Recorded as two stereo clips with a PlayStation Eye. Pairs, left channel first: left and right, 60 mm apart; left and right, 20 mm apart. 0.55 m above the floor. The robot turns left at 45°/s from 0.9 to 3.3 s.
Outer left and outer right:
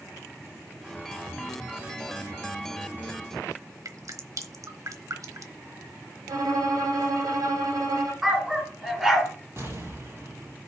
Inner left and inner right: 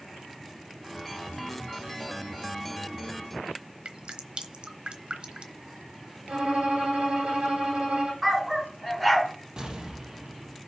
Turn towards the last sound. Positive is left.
turn(degrees=-45)  # may be behind; listen again after turning